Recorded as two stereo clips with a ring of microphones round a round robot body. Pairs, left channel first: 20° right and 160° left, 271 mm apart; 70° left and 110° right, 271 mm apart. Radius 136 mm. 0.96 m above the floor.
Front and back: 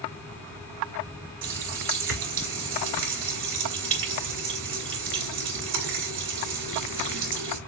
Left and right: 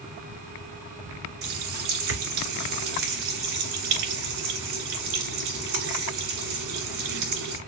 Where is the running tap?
155° right, 2 m.